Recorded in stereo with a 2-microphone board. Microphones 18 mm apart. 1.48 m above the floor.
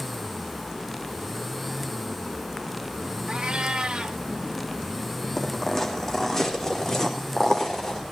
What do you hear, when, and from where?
3.3 s a cat meowing: 60° right (ahead or behind), 2 m
5.4 s footsteps: 20° left (ahead or behind), 3.5 m; by 8.0 s 30° left (ahead or behind), 5.5 m